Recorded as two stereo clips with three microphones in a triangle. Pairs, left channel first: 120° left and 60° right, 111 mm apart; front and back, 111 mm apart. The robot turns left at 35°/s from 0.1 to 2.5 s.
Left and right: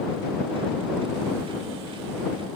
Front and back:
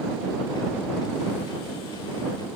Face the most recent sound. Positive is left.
No sound to turn to.